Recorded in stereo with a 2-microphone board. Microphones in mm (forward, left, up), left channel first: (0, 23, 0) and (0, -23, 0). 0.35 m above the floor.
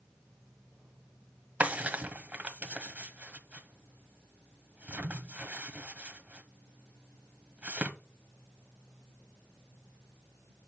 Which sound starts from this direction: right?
A drawer, at 1.6 s.